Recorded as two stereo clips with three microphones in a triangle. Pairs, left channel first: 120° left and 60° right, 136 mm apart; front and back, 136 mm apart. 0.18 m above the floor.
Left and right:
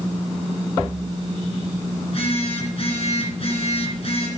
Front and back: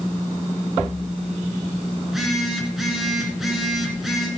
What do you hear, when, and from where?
2.0 s a phone buzzing: 95° left, 2.5 m